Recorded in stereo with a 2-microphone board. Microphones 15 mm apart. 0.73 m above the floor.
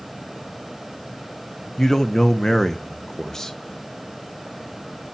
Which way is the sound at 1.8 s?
35° left (ahead or behind).